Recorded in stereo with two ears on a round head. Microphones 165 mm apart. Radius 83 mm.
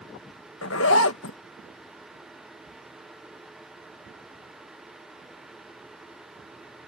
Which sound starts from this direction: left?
A zipper, at 0.6 s.